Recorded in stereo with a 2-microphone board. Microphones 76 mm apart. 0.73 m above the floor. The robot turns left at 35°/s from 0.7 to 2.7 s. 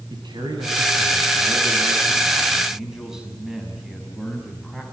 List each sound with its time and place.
0.1 s a man speaking: 105° right, 5.5 m; by 4.8 s 175° right, 5.5 m